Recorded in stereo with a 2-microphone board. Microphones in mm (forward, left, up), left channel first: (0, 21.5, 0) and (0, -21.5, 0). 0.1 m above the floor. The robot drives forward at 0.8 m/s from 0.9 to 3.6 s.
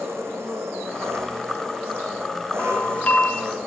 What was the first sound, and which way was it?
An engine running, 70° right (ahead or behind).